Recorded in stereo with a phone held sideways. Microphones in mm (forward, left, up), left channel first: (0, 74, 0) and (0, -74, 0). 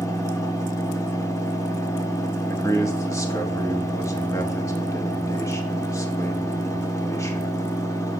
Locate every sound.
0.0 s a fan: 20° left (ahead or behind), 1.0 m
2.5 s a man speaking: 20° left (ahead or behind), 1.2 m